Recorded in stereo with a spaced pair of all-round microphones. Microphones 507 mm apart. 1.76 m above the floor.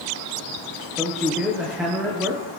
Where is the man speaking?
Centre (ahead or behind), 1.7 m.